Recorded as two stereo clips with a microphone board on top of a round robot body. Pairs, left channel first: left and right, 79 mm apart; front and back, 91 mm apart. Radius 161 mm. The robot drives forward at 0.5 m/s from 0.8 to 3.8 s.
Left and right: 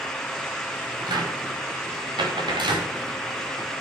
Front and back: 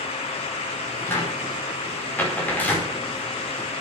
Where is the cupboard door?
65° right, 5.5 m; by 2.9 s 75° right, 5 m.